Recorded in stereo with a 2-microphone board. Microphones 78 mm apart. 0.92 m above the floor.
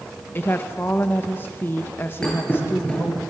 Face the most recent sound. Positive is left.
turn(degrees=10)  # may be behind; listen again after turning